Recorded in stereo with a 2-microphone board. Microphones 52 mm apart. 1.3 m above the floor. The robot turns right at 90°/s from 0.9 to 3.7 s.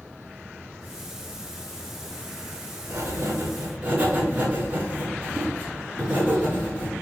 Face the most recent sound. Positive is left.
turn(degrees=-30)